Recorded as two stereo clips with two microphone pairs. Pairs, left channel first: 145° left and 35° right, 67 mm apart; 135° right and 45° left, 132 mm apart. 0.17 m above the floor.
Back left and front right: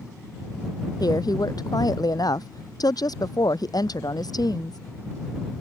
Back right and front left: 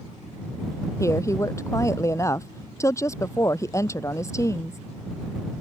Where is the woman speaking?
160° left.